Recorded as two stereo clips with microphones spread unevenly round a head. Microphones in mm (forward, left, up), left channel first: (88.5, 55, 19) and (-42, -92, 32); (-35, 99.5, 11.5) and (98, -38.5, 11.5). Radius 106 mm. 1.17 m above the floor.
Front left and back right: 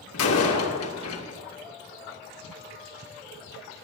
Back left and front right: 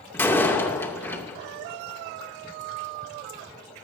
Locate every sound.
0.1 s a door slam: 55° left, 2.5 m